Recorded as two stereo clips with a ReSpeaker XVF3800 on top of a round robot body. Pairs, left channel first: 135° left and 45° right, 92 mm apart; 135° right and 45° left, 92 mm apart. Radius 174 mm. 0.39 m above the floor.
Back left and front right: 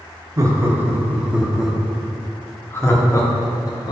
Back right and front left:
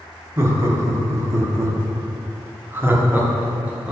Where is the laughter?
Straight ahead, 1.8 m; by 3.9 s 115° left, 1.9 m.